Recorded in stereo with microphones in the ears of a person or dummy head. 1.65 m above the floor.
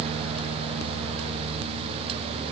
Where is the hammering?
No hammering in this recording.